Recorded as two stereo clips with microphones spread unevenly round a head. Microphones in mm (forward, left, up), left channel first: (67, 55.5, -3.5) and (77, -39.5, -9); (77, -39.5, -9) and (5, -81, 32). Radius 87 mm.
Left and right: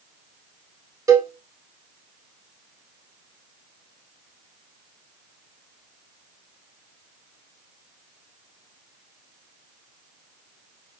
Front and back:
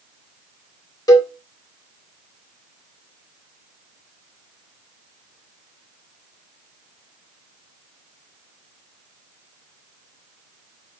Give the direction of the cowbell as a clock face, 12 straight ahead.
1 o'clock.